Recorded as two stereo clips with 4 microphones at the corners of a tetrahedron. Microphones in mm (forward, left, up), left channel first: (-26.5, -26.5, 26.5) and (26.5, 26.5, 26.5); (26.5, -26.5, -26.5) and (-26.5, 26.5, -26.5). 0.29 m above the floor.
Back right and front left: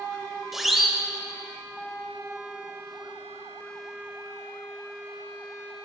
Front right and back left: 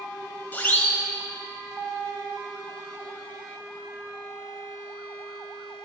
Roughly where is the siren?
Ahead right.